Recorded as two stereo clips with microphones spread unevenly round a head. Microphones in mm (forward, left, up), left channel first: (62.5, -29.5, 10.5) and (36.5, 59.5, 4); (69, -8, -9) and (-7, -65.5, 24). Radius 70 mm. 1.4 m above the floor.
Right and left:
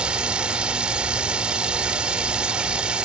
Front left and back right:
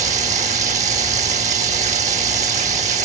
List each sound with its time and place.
0.0 s running water: 170° right